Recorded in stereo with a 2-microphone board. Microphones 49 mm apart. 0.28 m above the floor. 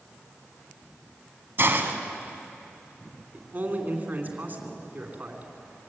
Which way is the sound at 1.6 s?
50° right (ahead or behind).